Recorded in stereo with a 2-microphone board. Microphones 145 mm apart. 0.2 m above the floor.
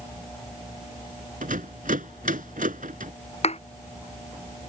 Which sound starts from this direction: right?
A rattle, at 1.4 s.